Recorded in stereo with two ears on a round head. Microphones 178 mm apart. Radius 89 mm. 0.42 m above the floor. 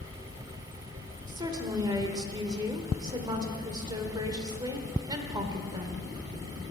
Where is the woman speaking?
20° right (ahead or behind), 1.2 m.